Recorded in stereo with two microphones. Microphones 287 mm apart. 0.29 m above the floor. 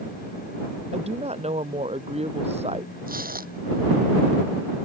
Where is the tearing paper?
30° right (ahead or behind).